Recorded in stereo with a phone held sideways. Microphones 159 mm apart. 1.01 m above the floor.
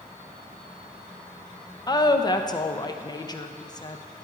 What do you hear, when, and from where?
1.9 s a woman speaking: 25° left (ahead or behind), 0.5 m